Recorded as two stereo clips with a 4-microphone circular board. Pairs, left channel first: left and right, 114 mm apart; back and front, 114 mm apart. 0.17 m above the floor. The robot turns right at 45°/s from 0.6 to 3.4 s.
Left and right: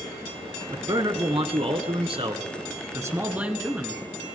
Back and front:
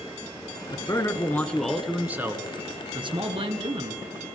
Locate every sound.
0.7 s a man speaking: 135° right, 1.7 m; by 4.0 s 15° right, 1.7 m